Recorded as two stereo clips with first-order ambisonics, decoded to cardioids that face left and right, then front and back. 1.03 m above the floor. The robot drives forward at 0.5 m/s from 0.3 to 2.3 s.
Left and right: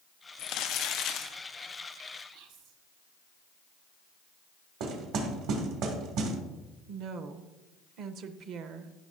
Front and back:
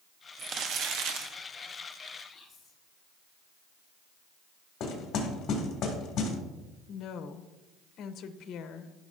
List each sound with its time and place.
0.4 s crumpling: 120° left, 0.7 m; by 1.3 s 145° left, 1.0 m
2.3 s whispering: 85° right, 1.4 m
4.8 s knocking: 55° right, 1.8 m
6.9 s a woman speaking: 50° right, 0.6 m